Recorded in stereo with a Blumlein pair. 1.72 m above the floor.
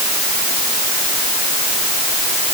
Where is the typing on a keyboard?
No typing on a keyboard in this recording.